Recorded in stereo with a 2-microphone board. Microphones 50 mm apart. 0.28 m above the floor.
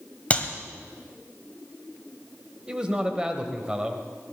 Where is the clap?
25° left (ahead or behind), 1.4 m.